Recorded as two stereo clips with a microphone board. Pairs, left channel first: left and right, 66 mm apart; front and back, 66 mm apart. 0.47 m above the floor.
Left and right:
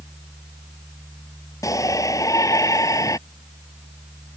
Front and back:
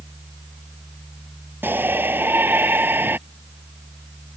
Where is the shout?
120° left.